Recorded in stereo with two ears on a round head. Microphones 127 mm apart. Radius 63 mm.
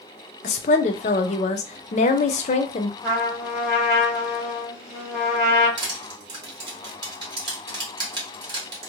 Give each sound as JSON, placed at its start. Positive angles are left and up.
{"t": 0.4, "sound": "a woman speaking", "side_deg": 50, "distance_m": 0.5}
{"t": 3.0, "sound": "a trumpet", "side_deg": -10, "distance_m": 1.6}
{"t": 5.8, "sound": "crushing", "side_deg": -30, "distance_m": 1.1}